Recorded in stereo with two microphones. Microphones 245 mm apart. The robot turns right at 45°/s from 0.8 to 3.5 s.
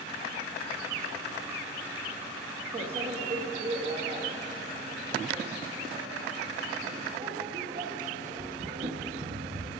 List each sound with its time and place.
2.7 s a microwave: 40° right (ahead or behind), 1.3 m; by 9.8 s 35° right (ahead or behind), 1.3 m